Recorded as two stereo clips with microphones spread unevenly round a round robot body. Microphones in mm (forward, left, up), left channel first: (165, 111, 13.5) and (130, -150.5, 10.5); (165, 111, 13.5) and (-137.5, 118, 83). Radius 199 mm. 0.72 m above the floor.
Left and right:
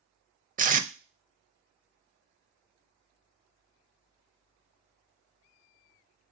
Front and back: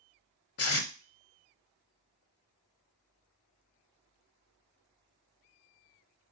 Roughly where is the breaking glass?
I don't hear breaking glass.